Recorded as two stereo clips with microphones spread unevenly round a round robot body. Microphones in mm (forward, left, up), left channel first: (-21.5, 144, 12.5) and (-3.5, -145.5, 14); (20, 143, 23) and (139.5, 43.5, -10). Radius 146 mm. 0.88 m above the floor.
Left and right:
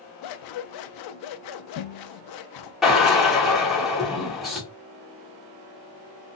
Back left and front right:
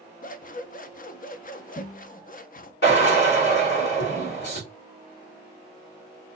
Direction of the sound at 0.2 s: 110° left.